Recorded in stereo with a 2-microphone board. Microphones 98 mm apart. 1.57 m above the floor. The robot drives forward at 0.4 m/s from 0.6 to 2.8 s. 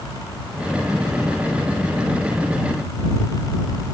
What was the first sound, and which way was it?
Only background noise.